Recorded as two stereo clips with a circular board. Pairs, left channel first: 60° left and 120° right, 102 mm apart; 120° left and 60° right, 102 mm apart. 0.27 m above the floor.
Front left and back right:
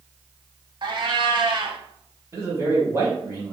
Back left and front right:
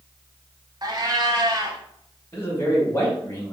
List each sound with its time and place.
0.8 s a cat meowing: 100° right, 0.6 m
2.3 s a man speaking: straight behind, 1.8 m